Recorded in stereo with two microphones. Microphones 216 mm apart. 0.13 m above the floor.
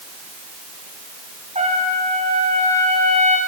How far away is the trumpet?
About 7.5 m.